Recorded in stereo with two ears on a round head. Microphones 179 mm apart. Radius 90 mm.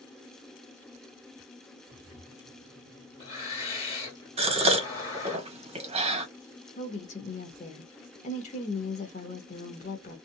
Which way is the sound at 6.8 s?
35° left (ahead or behind).